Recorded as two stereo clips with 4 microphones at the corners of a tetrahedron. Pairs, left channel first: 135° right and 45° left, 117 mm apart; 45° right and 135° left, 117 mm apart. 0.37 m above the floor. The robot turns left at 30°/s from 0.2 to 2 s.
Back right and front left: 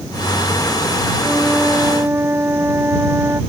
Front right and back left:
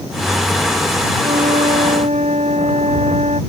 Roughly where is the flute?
Behind left.